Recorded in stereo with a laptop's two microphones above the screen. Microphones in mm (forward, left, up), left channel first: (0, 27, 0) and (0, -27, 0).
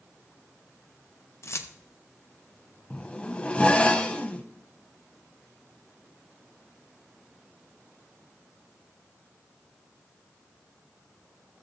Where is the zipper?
20° left (ahead or behind), 0.8 m.